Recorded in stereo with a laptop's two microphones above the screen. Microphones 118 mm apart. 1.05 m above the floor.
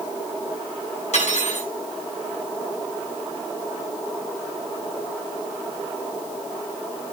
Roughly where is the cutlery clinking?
Left.